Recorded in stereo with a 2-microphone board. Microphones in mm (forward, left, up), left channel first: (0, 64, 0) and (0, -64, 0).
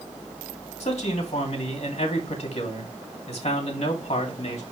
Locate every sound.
0.8 s a man speaking: 55° left (ahead or behind), 2.5 m